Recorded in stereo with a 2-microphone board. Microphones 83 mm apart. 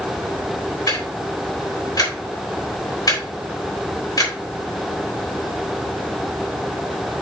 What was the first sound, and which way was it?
Ticking, 45° left (ahead or behind).